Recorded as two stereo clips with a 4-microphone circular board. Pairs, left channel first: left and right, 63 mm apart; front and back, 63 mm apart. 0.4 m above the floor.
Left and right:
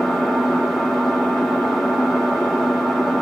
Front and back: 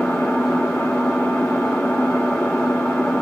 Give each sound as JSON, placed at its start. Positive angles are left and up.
{"t": 0.0, "sound": "an engine running", "azimuth_deg": 10, "distance_m": 1.1}